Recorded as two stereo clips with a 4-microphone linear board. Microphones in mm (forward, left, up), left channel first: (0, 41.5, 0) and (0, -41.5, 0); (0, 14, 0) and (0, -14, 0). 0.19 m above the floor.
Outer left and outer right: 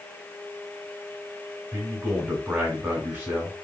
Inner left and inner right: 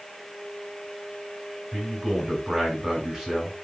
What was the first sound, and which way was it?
A man speaking, 20° right (ahead or behind).